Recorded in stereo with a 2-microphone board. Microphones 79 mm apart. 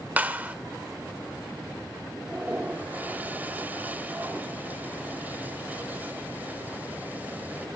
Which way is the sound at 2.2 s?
20° right (ahead or behind).